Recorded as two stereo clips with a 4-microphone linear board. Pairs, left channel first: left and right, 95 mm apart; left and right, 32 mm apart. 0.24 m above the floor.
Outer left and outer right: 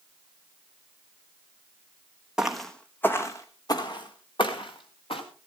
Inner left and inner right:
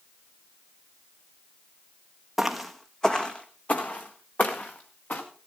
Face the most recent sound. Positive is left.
turn(degrees=65)  # may be behind; listen again after turning